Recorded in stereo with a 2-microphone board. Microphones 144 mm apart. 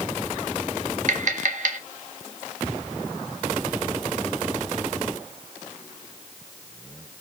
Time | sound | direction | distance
1.1 | tapping | 60° right (ahead or behind) | 1.2 m